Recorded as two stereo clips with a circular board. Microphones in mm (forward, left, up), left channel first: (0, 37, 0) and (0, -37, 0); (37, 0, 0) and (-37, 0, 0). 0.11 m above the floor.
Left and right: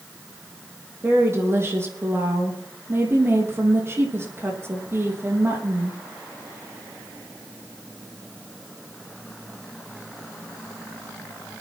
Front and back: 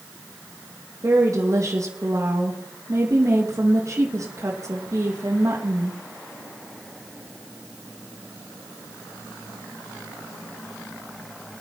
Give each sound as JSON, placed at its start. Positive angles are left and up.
{"t": 1.0, "sound": "a woman speaking", "azimuth_deg": -140, "distance_m": 4.0}